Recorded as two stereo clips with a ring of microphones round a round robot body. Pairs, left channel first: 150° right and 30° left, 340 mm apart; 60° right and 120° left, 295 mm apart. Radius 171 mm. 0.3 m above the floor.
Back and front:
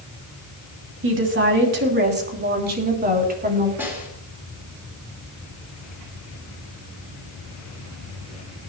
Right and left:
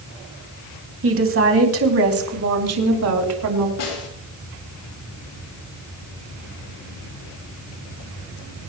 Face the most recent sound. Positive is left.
turn(degrees=-55)